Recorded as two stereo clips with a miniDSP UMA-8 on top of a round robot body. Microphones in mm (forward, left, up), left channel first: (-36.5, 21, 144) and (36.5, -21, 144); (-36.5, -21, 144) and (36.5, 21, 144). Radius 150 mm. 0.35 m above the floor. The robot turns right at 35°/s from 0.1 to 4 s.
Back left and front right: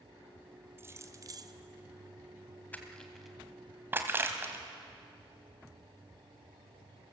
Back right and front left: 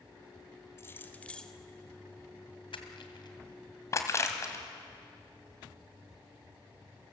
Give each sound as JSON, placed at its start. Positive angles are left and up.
{"t": 0.8, "sound": "keys jangling", "azimuth_deg": -90, "distance_m": 1.5}
{"t": 2.7, "sound": "crushing", "azimuth_deg": -140, "distance_m": 2.5}